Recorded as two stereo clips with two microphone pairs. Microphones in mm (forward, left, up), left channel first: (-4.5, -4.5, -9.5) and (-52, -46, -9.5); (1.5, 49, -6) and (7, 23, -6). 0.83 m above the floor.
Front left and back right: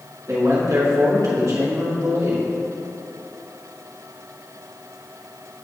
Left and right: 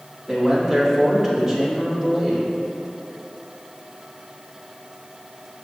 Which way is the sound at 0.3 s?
150° right.